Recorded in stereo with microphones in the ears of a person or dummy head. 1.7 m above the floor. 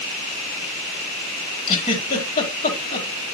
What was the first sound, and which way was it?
A giggle, 40° left (ahead or behind).